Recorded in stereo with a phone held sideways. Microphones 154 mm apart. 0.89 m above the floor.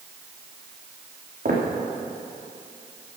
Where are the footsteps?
75° right (ahead or behind), 4 m.